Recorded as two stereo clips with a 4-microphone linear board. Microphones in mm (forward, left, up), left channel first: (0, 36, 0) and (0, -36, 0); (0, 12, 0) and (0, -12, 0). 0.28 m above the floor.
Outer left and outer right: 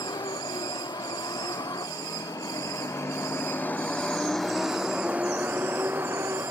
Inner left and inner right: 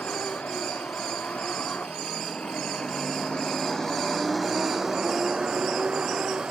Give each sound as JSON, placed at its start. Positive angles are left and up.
{"t": 0.0, "sound": "a vehicle", "side_deg": 75}